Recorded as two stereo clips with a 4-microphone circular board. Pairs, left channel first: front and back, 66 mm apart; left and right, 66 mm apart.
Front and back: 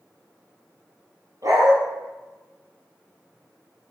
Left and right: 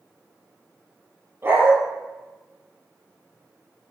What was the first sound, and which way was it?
A dog barking, 145° right.